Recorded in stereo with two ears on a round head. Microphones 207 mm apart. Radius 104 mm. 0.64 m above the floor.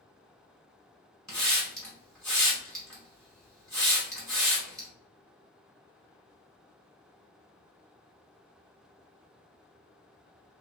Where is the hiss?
5° left (ahead or behind), 1.5 m.